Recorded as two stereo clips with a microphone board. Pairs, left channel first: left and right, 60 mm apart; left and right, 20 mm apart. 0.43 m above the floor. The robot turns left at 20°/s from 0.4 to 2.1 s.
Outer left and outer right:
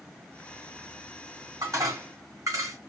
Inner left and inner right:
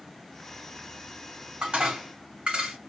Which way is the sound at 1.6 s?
70° right (ahead or behind).